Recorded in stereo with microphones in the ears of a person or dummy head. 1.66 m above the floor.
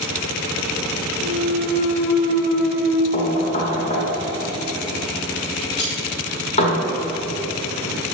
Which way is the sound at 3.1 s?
35° left (ahead or behind).